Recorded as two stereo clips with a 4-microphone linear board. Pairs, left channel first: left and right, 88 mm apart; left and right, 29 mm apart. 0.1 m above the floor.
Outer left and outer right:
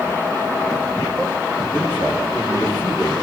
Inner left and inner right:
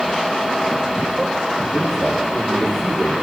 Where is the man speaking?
30° right (ahead or behind), 8.5 m.